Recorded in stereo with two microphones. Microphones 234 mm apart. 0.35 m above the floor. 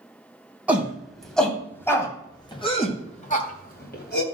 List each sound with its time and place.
0.7 s a shout: 5° right (ahead or behind), 3 m; by 4.2 s 50° left (ahead or behind), 2.5 m